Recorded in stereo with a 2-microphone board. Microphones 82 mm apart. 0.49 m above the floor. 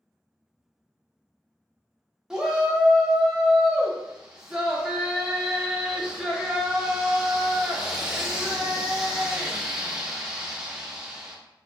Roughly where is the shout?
Centre.